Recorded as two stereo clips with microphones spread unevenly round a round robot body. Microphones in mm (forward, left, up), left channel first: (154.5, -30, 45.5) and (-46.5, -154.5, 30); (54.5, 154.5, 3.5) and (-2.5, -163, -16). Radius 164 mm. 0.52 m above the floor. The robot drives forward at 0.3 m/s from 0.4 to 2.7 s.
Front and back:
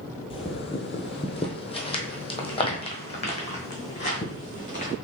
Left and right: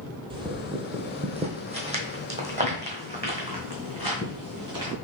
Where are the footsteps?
25° right, 0.8 m.